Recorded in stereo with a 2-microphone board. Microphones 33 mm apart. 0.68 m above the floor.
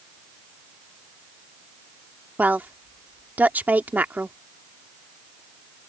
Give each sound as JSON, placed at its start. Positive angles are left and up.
{"t": 2.4, "sound": "a woman speaking", "side_deg": -60}